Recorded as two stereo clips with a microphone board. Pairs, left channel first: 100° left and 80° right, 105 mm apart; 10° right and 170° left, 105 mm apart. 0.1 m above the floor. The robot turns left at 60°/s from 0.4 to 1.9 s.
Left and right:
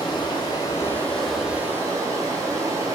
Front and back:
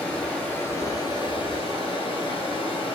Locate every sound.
0.0 s running water: 65° left, 1.0 m; by 3.0 s 25° right, 1.0 m